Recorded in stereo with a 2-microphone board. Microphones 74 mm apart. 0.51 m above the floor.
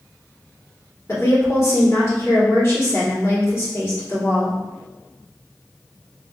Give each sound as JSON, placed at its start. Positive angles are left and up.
{"t": 1.1, "sound": "a woman speaking", "side_deg": 40, "distance_m": 1.7}